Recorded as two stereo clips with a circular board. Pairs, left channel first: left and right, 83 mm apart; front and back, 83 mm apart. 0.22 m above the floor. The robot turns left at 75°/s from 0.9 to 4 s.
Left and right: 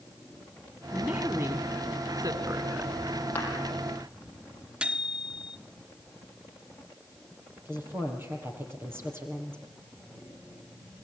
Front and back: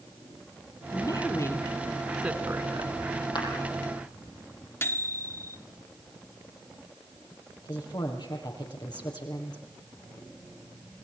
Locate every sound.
0.9 s a woman speaking: 10° left, 1.8 m; by 3.0 s 145° right, 1.8 m
3.4 s a clap: 25° left, 7.5 m; by 3.5 s 15° left, 7.5 m
4.8 s a microwave: 25° right, 0.9 m
7.7 s a woman speaking: 30° right, 5.5 m